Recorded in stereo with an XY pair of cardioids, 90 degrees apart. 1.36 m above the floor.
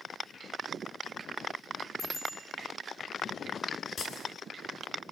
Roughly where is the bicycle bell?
Left.